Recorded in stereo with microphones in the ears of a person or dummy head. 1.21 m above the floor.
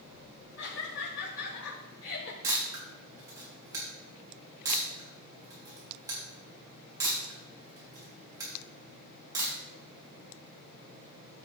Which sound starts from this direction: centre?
A camera shutter, at 2.4 s.